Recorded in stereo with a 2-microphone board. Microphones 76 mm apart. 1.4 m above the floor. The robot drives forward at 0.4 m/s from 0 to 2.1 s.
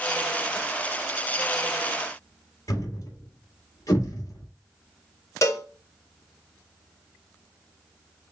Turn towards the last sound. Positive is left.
turn(degrees=40)  # may be behind; listen again after turning